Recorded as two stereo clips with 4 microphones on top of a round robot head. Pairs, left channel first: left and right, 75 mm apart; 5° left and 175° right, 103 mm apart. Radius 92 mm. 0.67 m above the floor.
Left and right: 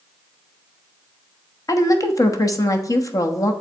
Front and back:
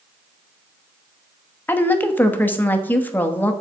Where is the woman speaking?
70° left, 1.2 m.